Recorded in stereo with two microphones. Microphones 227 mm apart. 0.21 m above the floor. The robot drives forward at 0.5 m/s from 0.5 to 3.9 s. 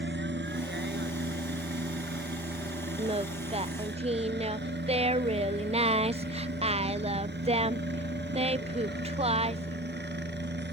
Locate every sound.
0.0 s a helicopter: 55° right (ahead or behind); by 10.7 s 50° right (ahead or behind)
3.0 s singing: 25° right (ahead or behind)